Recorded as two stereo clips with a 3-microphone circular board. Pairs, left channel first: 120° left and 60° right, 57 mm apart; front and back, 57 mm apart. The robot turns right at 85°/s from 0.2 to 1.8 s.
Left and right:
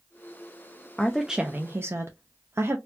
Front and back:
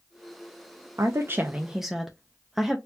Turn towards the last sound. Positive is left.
turn(degrees=-95)